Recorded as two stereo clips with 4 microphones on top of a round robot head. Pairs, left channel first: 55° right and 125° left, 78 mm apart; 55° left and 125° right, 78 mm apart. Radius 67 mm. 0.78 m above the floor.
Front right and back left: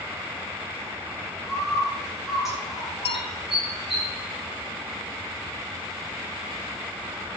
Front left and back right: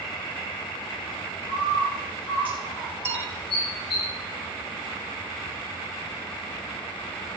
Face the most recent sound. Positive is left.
turn(degrees=-65)